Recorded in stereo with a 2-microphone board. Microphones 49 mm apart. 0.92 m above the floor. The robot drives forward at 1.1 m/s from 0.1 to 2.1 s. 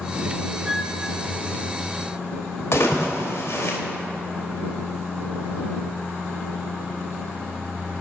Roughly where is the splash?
Left.